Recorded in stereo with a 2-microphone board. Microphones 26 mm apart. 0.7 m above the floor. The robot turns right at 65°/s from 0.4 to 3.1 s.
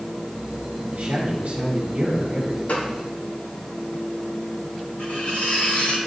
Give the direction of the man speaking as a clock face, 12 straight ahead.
4 o'clock.